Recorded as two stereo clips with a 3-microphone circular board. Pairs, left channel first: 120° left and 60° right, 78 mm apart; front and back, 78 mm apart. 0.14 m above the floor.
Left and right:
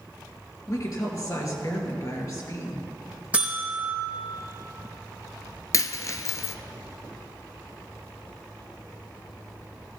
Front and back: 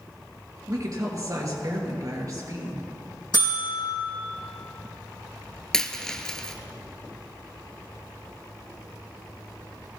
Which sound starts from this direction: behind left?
A woman speaking, at 0.7 s.